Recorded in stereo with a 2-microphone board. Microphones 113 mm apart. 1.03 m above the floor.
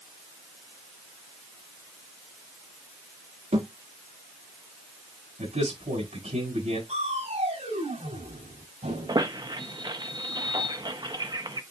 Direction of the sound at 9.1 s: 40° right (ahead or behind).